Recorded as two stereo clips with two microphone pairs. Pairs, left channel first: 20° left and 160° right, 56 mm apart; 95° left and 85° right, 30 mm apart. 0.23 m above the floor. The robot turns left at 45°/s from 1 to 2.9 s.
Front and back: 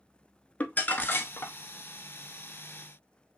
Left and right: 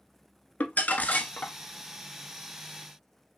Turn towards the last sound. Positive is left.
turn(degrees=-5)